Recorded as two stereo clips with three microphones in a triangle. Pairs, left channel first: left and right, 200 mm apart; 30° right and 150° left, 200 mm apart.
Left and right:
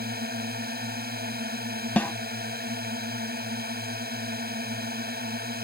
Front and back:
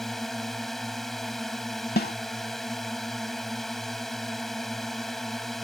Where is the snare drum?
5° left.